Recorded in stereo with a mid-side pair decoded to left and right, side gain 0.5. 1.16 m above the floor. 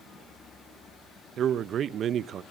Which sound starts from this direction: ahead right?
A man speaking, at 1.4 s.